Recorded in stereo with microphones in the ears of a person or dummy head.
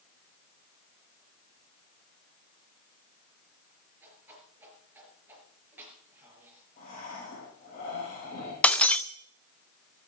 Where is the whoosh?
10° right (ahead or behind), 5 m.